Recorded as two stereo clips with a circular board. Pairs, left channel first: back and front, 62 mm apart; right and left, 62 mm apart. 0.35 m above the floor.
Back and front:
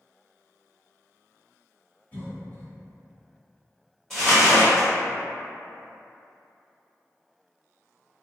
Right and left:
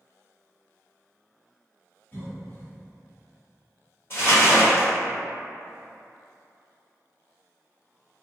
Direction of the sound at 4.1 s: 95° right.